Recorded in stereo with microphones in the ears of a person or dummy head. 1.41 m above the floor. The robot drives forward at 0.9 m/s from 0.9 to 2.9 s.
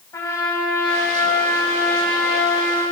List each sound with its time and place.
0.1 s a trumpet: 20° left (ahead or behind), 7.5 m; by 2.8 s 15° left (ahead or behind), 9.5 m